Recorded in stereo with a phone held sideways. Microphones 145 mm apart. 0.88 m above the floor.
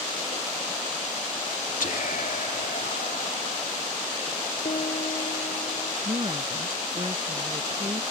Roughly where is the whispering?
Left.